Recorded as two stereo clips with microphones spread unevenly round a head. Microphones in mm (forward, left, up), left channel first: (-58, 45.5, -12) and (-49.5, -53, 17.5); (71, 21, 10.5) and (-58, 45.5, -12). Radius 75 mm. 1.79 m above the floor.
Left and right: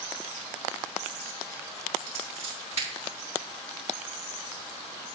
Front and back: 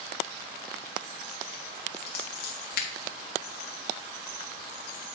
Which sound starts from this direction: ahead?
Scissors, at 2.1 s.